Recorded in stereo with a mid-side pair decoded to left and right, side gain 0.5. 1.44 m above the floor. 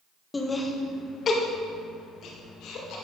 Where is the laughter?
20° left, 1.5 m; by 3.0 s 75° left, 2.5 m.